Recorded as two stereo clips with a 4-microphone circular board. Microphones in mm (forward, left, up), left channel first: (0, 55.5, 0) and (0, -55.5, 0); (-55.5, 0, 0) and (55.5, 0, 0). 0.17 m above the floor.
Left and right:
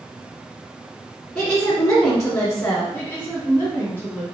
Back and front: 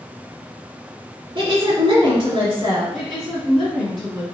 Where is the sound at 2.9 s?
100° left, 1.5 m.